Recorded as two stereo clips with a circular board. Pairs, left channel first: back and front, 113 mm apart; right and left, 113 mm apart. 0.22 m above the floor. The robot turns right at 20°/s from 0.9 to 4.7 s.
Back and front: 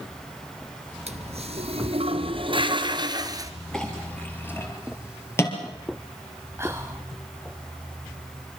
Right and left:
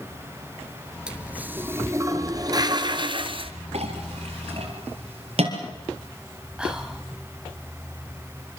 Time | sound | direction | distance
1.1 | a toilet flushing | 10° left | 1.3 m
3.7 | a clink | 95° left | 4 m
6.6 | whispering | 15° left | 1.4 m